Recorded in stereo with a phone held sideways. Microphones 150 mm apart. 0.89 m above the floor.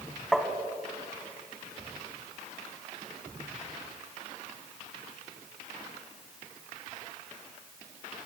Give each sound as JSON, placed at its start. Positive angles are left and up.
{"t": 0.3, "sound": "tapping", "side_deg": 0, "distance_m": 1.3}